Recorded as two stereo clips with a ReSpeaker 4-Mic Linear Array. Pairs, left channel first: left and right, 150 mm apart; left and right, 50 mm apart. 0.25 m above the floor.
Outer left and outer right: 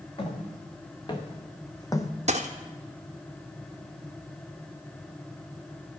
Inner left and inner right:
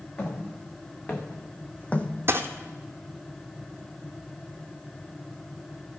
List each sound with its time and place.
0.2 s footsteps: 35° left (ahead or behind), 2 m; by 2.1 s 20° left (ahead or behind), 0.8 m
2.3 s a dropped coin: 50° right (ahead or behind), 1.0 m